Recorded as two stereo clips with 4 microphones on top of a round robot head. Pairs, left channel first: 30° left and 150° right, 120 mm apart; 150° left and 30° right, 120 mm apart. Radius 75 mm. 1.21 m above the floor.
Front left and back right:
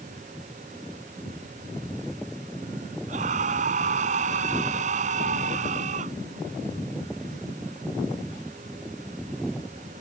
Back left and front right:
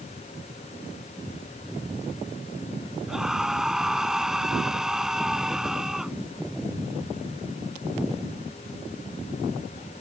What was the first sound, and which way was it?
A scream, 120° right.